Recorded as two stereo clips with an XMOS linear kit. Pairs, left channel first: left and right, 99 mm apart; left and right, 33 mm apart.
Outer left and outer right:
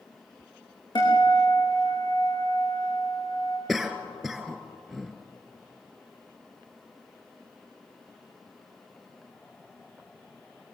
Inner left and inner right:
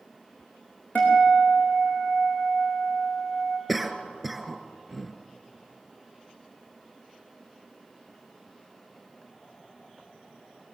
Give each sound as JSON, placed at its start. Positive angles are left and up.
{"t": 0.9, "sound": "a guitar", "side_deg": 50, "distance_m": 6.0}
{"t": 3.7, "sound": "a cough", "side_deg": 0, "distance_m": 2.0}